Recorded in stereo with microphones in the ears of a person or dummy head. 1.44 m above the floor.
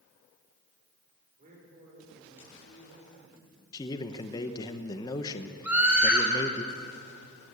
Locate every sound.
1.4 s a man speaking: 45° right (ahead or behind), 4 m; by 3.6 s 40° right (ahead or behind), 7 m
3.7 s a man speaking: 25° left (ahead or behind), 1.1 m
5.6 s a scream: 10° right (ahead or behind), 3 m